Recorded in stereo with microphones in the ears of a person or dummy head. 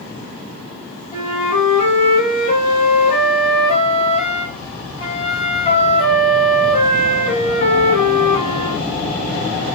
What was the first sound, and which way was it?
A flute, 40° left (ahead or behind).